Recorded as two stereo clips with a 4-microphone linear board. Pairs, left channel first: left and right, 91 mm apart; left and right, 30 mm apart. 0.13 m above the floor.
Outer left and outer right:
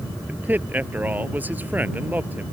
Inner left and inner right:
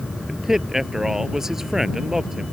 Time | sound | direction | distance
0.3 | a man speaking | 20° right (ahead or behind) | ?